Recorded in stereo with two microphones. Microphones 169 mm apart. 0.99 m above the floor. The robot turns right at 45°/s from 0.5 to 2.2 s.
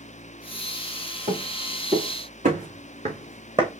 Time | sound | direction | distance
1.3 | footsteps | 65° right (ahead or behind) | 4 m